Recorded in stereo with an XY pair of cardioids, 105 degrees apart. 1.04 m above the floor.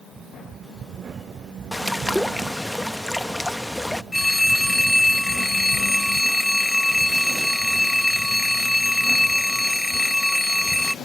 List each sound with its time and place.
1.7 s a bird: 5° left
4.1 s a phone ringing: 10° left